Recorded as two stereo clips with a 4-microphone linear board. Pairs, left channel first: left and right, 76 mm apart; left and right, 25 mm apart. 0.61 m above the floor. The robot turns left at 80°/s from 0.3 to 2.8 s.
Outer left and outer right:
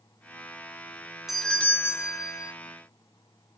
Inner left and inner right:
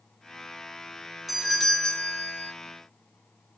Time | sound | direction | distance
1.3 | a doorbell | 175° right | 2.0 m